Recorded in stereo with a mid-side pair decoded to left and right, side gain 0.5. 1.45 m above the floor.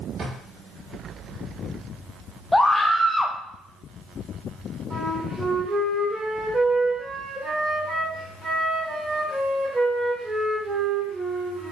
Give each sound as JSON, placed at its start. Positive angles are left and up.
{"t": 0.2, "sound": "a drawer", "azimuth_deg": -50, "distance_m": 1.6}
{"t": 2.5, "sound": "a scream", "azimuth_deg": 10, "distance_m": 0.5}
{"t": 4.9, "sound": "a flute", "azimuth_deg": -35, "distance_m": 1.8}